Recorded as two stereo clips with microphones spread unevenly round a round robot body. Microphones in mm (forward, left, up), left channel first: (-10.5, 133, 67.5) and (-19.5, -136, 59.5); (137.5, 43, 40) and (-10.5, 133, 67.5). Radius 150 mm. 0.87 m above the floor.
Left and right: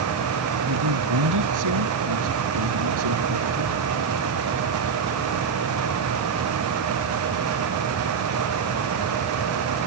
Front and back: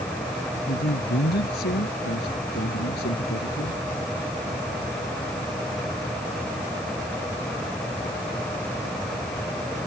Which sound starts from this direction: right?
A man speaking, at 0.7 s.